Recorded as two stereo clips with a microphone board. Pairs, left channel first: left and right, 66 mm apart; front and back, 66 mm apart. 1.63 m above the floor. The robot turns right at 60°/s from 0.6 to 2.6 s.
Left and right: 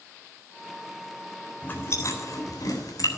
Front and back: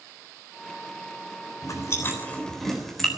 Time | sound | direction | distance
1.6 | chewing | 30° left | 3.5 m